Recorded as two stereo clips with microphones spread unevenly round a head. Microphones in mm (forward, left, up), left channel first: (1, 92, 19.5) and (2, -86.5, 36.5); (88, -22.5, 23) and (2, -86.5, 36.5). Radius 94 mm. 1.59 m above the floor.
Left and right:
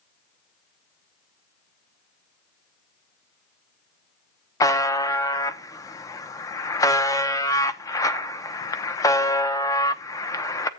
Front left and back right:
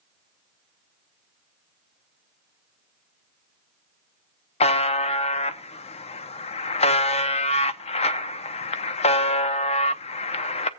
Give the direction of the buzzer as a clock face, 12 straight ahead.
11 o'clock.